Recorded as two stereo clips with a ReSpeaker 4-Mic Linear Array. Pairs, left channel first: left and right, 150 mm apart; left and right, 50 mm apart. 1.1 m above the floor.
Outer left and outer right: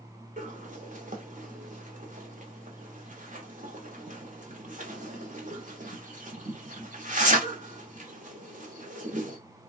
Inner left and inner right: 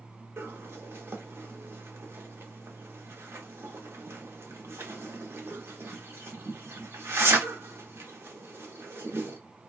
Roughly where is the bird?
Right.